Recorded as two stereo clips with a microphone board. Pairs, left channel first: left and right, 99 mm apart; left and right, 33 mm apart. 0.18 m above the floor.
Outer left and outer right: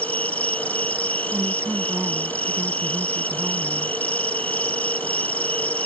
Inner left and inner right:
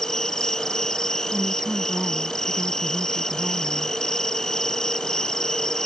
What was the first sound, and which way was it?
An insect, 15° left (ahead or behind).